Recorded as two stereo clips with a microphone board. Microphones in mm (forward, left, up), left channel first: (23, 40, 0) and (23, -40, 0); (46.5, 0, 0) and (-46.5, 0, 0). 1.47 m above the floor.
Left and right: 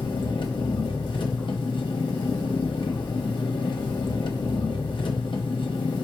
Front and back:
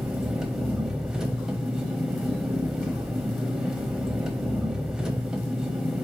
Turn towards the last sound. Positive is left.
turn(degrees=95)